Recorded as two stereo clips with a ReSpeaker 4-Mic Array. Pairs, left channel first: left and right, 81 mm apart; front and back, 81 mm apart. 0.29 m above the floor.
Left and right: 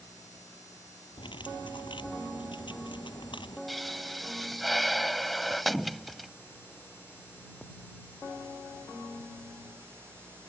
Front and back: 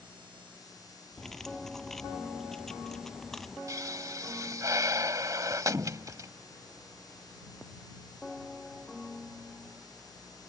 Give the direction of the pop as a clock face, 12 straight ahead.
6 o'clock.